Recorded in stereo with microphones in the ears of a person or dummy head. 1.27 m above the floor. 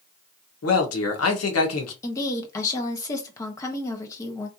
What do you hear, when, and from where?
0.6 s a man speaking: 80° left, 1.3 m
2.0 s a woman speaking: 25° left (ahead or behind), 1.0 m